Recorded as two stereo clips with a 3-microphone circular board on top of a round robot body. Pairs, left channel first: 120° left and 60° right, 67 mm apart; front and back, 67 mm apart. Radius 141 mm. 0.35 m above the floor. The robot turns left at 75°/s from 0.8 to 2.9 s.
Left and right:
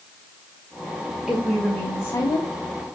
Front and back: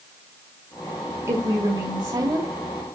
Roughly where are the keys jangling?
No keys jangling in this recording.